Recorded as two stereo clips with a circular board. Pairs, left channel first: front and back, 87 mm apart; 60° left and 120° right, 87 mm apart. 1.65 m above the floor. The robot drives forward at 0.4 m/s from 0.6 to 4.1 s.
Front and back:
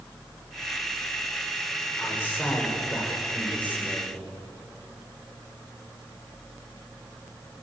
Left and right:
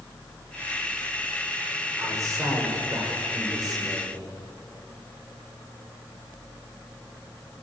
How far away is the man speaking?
About 6.5 m.